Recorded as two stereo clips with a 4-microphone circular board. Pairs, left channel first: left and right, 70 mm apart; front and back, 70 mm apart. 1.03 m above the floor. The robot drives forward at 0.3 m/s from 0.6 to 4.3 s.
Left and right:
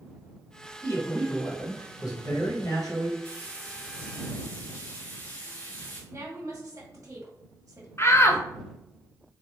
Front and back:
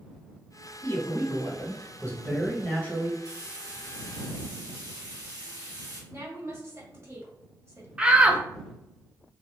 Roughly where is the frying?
Behind.